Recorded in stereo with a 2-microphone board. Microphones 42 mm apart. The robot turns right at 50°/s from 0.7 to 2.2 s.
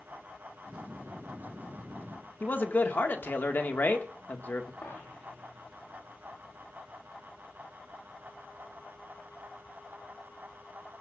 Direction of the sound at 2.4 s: 55° left (ahead or behind).